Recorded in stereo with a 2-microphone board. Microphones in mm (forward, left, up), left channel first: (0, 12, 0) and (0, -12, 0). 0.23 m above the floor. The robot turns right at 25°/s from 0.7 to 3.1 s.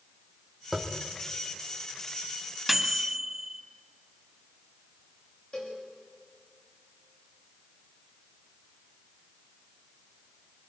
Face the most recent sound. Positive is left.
turn(degrees=55)  # may be behind; listen again after turning